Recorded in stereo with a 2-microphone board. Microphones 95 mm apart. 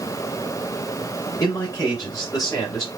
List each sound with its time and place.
1.4 s a man speaking: 40° left (ahead or behind), 2 m